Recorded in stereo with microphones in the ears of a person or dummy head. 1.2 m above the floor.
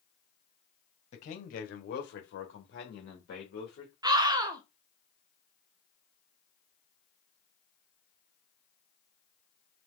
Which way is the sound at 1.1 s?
50° left (ahead or behind).